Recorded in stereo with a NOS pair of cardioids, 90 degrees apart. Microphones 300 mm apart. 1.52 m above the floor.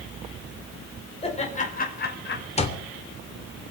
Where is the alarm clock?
20° left, 2.5 m.